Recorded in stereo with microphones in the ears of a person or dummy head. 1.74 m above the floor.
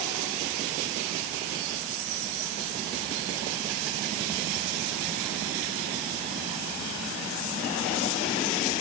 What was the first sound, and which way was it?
Only background noise.